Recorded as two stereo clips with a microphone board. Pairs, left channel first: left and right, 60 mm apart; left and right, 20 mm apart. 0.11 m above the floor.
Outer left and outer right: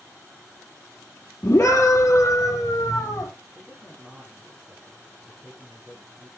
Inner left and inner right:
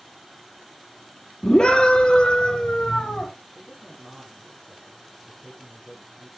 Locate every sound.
1.4 s a scream: 35° left (ahead or behind), 2.5 m; by 3.3 s 50° left (ahead or behind), 4.5 m
3.5 s a man speaking: 5° right (ahead or behind), 8 m